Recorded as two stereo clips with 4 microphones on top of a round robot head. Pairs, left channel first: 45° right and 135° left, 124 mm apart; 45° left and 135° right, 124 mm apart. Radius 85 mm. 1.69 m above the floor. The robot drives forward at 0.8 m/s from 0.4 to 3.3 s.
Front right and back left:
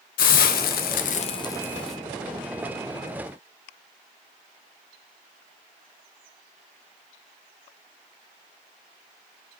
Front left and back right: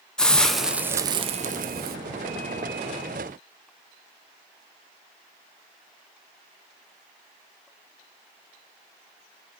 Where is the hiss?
40° right, 0.9 m; by 2.0 s 135° right, 0.8 m.